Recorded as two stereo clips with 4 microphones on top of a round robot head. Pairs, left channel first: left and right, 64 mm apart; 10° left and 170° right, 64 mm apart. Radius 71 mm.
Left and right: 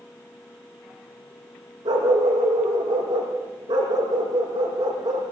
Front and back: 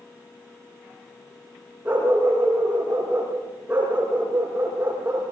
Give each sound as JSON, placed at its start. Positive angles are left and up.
{"t": 1.9, "sound": "a dog barking", "azimuth_deg": -95, "distance_m": 8.0}